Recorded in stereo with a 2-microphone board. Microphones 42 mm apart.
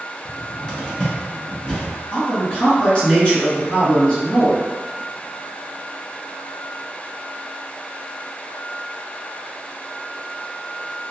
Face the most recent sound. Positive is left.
turn(degrees=25)  # may be behind; listen again after turning